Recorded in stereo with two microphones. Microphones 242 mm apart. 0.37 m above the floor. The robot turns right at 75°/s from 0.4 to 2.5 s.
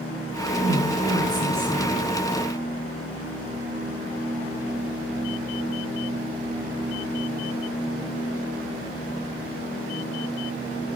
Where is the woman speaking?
95° right, 5.5 m; by 1.9 s 5° left, 5.5 m.